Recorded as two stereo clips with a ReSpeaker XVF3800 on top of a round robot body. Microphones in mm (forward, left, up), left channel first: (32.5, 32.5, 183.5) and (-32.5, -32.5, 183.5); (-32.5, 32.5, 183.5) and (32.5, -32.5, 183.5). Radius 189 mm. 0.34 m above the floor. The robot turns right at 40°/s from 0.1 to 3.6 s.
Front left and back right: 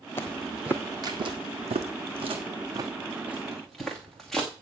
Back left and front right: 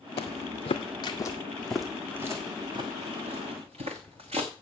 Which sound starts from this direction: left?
Footsteps, at 0.2 s.